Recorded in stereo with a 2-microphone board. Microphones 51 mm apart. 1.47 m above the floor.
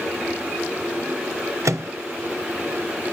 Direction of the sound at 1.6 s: 70° right (ahead or behind).